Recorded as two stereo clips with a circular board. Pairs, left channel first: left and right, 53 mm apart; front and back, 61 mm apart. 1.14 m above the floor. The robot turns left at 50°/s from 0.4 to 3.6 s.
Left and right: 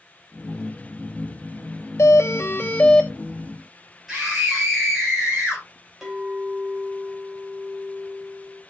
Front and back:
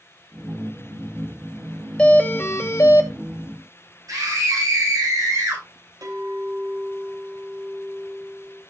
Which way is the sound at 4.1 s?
Straight behind.